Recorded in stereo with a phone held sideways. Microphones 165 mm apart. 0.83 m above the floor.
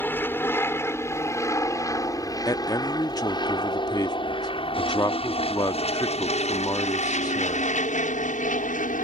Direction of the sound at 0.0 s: 10° left (ahead or behind).